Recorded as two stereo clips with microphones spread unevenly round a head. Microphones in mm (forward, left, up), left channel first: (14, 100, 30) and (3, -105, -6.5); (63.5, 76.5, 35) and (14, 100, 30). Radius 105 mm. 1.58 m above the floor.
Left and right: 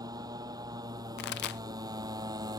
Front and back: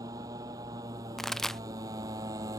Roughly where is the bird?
I don't hear a bird.